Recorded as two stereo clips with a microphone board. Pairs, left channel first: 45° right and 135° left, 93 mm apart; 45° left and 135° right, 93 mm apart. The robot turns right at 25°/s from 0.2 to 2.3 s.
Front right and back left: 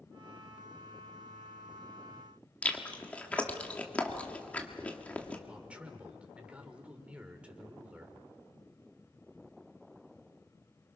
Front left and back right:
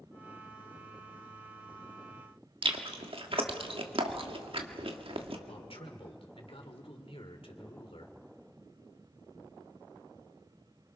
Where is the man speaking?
60° left, 2.5 m.